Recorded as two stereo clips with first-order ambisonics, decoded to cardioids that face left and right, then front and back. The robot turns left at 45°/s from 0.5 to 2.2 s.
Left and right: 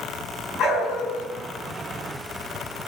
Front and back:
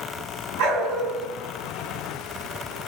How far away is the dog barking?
About 5.5 m.